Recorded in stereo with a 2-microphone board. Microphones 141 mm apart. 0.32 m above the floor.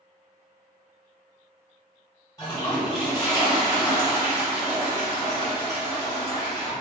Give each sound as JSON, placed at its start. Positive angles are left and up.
{"t": 2.4, "sound": "a toilet flushing", "side_deg": 25, "distance_m": 1.7}